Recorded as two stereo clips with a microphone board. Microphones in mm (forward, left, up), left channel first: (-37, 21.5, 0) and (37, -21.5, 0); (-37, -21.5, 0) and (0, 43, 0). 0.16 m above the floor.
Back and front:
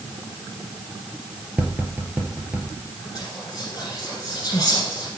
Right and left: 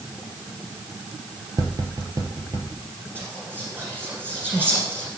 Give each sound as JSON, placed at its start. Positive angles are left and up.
{"t": 1.6, "sound": "tapping", "azimuth_deg": 40, "distance_m": 2.0}
{"t": 3.1, "sound": "whispering", "azimuth_deg": 115, "distance_m": 1.7}